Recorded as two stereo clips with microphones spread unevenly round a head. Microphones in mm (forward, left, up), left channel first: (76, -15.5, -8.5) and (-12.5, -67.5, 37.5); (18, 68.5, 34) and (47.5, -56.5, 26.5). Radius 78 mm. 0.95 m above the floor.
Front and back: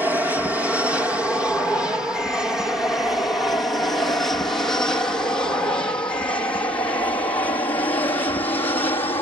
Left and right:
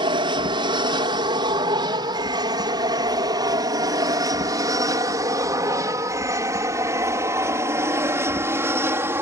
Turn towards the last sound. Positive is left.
turn(degrees=-10)